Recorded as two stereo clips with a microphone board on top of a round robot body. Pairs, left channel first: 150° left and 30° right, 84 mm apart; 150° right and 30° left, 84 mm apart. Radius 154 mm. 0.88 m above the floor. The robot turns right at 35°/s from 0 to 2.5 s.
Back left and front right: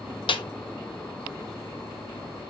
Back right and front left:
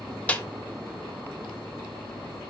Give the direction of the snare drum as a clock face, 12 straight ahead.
7 o'clock.